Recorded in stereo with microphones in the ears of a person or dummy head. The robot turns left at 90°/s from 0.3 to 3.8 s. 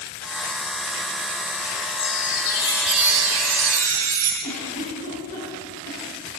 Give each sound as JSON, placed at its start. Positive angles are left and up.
{"t": 2.0, "sound": "a chime", "azimuth_deg": 80, "distance_m": 4.0}
{"t": 4.4, "sound": "a giggle", "side_deg": 45, "distance_m": 5.0}